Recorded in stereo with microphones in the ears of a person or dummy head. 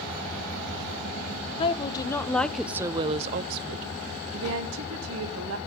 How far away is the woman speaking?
About 0.9 m.